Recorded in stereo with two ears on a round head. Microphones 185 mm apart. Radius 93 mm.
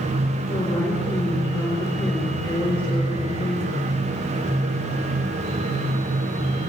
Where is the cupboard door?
No cupboard door in this recording.